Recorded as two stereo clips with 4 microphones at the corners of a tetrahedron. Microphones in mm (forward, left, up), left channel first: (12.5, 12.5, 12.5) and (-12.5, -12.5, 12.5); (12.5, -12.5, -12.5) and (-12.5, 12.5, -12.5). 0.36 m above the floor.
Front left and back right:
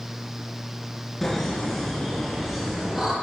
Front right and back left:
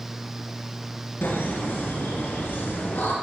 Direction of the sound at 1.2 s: 40° right.